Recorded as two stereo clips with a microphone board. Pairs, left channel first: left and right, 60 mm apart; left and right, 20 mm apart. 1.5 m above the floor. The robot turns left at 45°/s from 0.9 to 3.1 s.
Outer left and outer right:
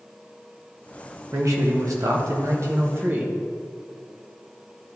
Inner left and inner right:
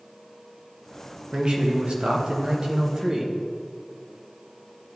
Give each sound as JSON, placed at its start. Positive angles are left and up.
{"t": 1.3, "sound": "a man speaking", "azimuth_deg": -60, "distance_m": 1.1}